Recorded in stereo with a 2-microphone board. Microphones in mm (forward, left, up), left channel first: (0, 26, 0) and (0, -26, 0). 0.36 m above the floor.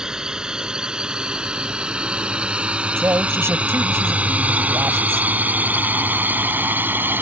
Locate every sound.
0.0 s a drone: 15° right (ahead or behind); by 7.2 s 40° right (ahead or behind)
3.0 s a man speaking: 55° right (ahead or behind)